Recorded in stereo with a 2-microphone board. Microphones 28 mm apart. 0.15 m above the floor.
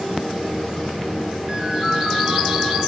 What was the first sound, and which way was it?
A ringtone, 35° right (ahead or behind).